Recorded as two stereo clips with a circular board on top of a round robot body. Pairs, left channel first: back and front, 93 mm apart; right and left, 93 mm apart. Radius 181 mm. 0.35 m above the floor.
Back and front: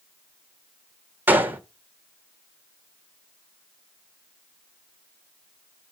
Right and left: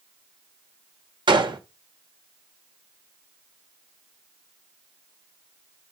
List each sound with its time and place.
1.3 s a gunshot: 70° left, 1.6 m